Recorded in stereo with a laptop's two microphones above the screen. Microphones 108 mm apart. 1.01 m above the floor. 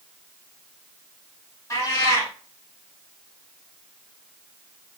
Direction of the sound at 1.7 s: 25° left (ahead or behind).